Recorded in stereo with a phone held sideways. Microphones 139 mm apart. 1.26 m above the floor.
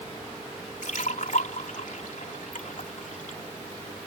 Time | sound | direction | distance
0.8 | a splash | 75° left (ahead or behind) | ?